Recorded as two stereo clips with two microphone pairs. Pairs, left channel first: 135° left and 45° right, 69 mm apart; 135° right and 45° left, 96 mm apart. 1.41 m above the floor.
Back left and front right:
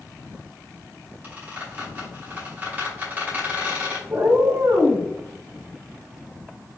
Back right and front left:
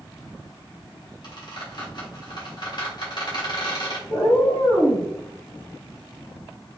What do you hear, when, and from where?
1.2 s a squeak: 110° right, 2 m
4.1 s a cat meowing: 95° right, 2 m